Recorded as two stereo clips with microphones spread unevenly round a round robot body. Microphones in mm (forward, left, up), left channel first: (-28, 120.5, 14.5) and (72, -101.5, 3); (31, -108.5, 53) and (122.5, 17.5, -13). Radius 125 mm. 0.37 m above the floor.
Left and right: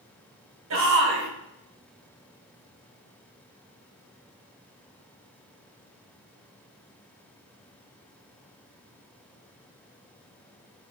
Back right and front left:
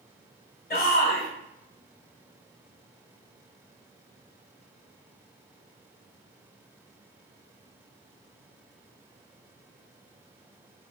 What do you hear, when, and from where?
0.7 s a shout: 90° right, 2 m